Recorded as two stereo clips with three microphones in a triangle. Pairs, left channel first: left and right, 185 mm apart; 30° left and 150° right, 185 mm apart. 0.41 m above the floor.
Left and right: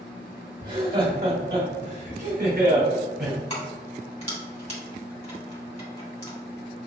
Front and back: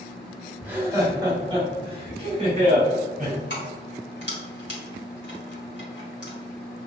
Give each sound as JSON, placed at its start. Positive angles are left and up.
{"t": 0.6, "sound": "laughter", "azimuth_deg": -70, "distance_m": 1.9}
{"t": 3.5, "sound": "keys jangling", "azimuth_deg": 40, "distance_m": 2.0}